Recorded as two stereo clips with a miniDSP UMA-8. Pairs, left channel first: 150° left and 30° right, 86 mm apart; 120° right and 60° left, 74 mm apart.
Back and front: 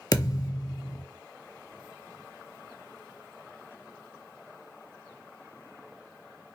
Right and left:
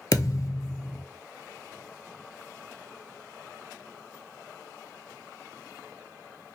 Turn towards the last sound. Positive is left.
turn(degrees=-165)